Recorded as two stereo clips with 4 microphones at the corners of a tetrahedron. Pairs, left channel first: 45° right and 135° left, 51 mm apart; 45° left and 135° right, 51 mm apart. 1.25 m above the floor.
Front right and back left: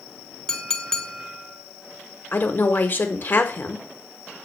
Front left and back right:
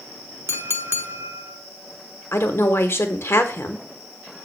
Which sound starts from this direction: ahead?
A woman speaking, at 2.3 s.